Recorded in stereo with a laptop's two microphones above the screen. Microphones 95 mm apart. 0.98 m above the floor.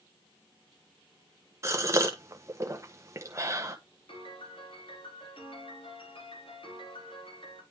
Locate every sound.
1.6 s a gasp: 30° right (ahead or behind), 1.0 m
4.1 s a piano: 65° left (ahead or behind), 2.5 m